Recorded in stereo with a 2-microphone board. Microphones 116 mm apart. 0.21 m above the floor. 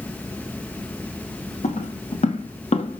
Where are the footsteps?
85° left, 2.5 m; by 3.0 s 60° left (ahead or behind), 1.5 m.